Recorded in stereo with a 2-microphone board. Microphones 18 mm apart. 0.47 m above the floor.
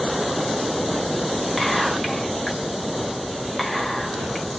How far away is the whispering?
About 1.5 m.